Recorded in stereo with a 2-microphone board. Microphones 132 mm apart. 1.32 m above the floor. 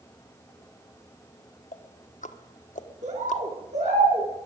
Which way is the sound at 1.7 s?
75° left (ahead or behind).